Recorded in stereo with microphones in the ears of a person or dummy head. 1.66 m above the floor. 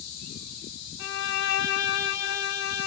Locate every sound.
1.0 s a violin: 60° left (ahead or behind), 0.8 m